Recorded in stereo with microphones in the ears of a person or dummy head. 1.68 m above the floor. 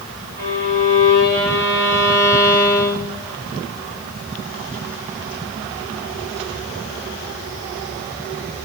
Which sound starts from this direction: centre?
A violin, at 0.4 s.